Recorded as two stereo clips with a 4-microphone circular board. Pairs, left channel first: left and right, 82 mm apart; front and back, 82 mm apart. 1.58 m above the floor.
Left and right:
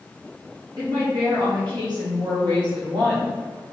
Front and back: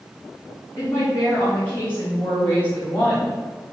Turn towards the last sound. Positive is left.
turn(degrees=-75)